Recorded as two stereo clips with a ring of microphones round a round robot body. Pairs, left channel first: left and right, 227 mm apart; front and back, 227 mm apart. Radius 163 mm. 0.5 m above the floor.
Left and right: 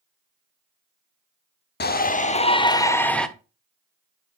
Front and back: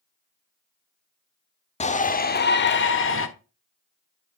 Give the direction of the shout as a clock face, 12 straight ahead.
10 o'clock.